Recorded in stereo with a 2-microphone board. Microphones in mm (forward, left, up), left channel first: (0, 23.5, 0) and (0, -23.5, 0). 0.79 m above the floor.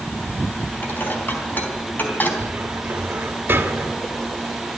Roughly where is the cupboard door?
Right.